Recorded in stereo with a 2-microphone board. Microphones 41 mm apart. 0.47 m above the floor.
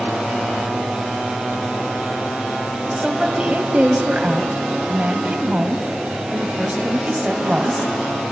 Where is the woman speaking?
25° right (ahead or behind), 2.5 m.